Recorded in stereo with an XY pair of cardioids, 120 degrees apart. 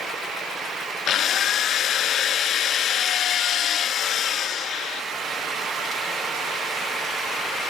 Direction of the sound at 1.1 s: 60° left.